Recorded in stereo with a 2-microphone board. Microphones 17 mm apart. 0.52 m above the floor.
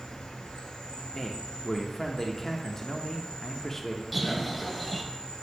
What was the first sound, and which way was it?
An insect, 80° left.